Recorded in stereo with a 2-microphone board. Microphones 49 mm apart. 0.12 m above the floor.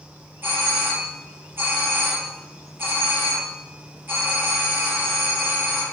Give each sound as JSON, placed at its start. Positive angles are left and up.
{"t": 0.4, "sound": "a doorbell", "side_deg": -50, "distance_m": 4.5}